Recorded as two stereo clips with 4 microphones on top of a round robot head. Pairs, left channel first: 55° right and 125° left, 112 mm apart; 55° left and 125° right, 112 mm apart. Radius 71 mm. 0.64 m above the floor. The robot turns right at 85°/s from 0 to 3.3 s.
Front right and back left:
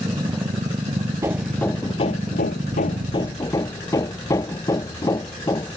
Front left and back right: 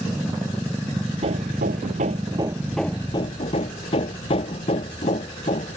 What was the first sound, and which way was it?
Hammering, 165° right.